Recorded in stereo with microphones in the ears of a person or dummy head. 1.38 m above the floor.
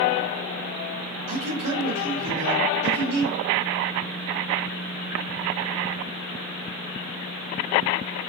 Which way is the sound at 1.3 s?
80° right.